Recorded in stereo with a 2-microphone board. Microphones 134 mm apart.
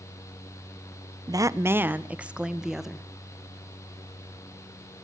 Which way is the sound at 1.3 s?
30° right (ahead or behind).